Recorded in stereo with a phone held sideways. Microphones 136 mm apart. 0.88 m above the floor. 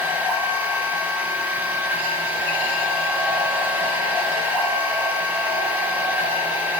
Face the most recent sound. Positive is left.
turn(degrees=-10)  # may be behind; listen again after turning